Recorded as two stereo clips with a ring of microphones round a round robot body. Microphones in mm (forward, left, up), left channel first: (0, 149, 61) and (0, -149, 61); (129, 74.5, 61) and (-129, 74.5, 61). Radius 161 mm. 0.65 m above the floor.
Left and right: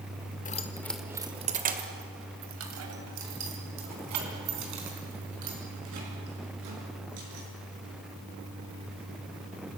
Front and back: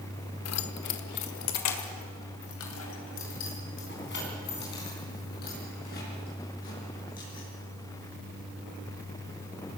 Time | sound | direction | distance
0.5 | keys jangling | 25° left | 1.3 m